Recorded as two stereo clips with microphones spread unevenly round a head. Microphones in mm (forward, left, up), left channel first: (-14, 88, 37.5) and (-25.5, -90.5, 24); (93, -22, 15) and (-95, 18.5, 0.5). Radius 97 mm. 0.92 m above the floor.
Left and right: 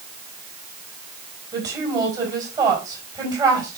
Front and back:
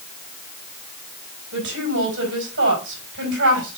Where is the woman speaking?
160° right, 3.5 m.